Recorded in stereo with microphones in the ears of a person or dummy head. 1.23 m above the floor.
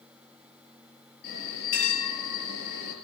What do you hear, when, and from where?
1.2 s a bell: 55° left (ahead or behind), 4.5 m